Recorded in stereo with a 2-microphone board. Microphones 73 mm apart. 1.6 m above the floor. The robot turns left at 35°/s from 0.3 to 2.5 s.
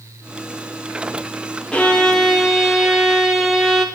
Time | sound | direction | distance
1.7 | a violin | 15° left (ahead or behind) | 0.6 m